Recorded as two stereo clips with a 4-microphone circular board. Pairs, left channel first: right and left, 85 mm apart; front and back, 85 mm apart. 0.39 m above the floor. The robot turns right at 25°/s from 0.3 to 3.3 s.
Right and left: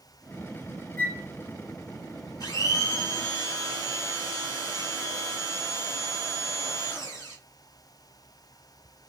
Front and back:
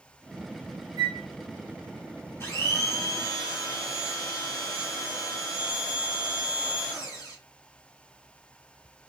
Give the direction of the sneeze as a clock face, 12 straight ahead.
I don't hear a sneeze.